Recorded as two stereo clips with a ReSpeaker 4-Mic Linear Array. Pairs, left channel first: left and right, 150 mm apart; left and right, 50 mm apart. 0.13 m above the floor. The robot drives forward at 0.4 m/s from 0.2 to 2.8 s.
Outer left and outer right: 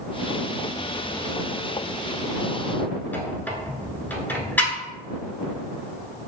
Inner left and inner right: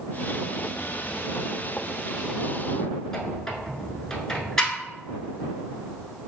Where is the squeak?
10° left (ahead or behind), 0.7 m.